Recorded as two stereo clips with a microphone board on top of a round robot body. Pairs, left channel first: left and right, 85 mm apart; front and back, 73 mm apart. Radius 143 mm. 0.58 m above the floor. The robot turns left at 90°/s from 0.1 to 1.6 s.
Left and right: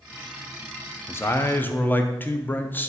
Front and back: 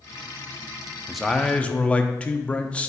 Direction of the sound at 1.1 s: 100° left.